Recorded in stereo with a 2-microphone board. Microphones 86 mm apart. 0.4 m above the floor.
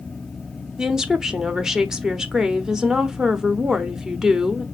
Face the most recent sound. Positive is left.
turn(degrees=-5)  # may be behind; listen again after turning